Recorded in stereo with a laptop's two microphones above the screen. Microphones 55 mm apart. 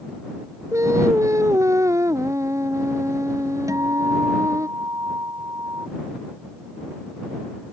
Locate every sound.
0.7 s singing: 60° right (ahead or behind)
3.7 s a guitar: 65° right (ahead or behind)